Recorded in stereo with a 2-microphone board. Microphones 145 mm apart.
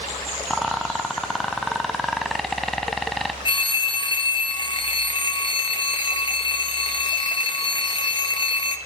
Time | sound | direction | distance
0.5 | a rattle | centre (ahead or behind) | 0.8 m
3.5 | a phone ringing | 35° left (ahead or behind) | 1.0 m